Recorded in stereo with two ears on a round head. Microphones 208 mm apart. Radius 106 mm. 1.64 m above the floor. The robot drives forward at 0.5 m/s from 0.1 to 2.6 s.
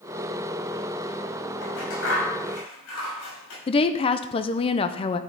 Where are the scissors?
60° left (ahead or behind), 6 m; by 3.6 s 65° left (ahead or behind), 5.5 m.